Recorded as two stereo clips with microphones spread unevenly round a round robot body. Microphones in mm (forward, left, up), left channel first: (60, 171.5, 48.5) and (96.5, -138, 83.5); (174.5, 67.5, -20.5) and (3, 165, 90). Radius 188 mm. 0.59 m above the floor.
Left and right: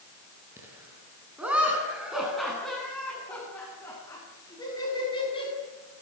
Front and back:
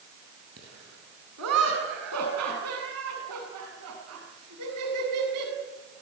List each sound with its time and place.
0.6 s laughter: 165° right, 8.5 m; by 5.5 s 170° left, 7 m